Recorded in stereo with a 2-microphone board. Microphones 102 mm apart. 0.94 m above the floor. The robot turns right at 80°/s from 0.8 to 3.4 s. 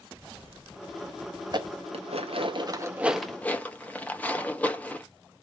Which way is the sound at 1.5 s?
45° right (ahead or behind).